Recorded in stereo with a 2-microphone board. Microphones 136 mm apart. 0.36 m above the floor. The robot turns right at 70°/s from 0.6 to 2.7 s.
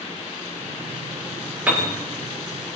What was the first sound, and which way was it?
A piano, 10° right (ahead or behind).